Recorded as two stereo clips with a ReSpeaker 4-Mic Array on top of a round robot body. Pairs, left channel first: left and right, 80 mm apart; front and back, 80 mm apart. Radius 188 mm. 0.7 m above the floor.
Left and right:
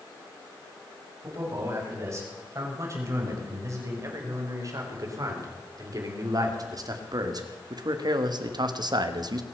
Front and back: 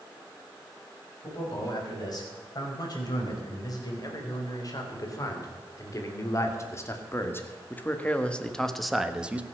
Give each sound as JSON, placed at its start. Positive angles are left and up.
{"t": 1.2, "sound": "a man speaking", "azimuth_deg": -35, "distance_m": 6.0}